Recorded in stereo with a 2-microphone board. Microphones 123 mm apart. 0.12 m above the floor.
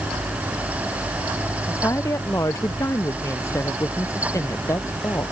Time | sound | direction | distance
1.6 | a woman speaking | 25° left (ahead or behind) | ?